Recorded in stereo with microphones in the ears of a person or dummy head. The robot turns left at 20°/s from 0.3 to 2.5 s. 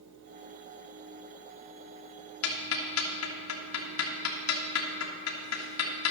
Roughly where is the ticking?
Left.